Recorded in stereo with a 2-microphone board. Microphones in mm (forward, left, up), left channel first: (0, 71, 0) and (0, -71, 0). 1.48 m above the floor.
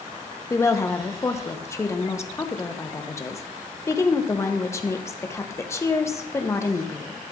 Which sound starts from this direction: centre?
A woman speaking, at 0.5 s.